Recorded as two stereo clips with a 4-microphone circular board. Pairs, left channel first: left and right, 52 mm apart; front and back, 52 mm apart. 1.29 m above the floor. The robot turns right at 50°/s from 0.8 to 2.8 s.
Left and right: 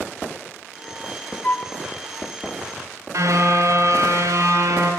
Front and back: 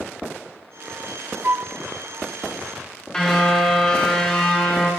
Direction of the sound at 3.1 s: 75° right.